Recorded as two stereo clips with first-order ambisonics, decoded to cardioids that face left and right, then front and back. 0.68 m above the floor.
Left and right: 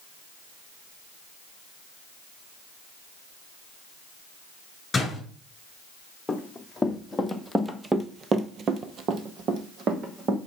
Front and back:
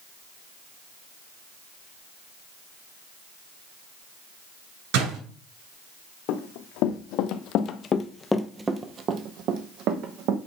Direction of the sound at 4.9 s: 170° left.